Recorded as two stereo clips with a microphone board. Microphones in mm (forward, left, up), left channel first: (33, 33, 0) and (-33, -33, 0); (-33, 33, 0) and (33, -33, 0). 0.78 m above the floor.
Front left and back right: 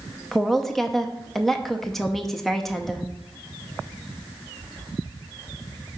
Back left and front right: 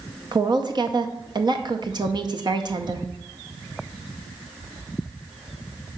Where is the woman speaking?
40° right, 0.6 m.